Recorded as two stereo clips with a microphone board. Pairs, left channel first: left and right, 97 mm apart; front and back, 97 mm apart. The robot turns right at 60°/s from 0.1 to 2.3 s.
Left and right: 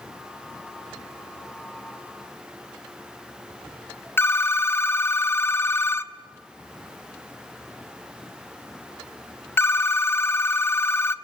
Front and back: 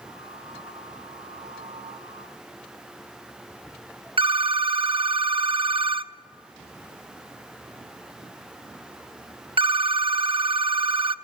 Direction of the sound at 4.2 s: 155° left.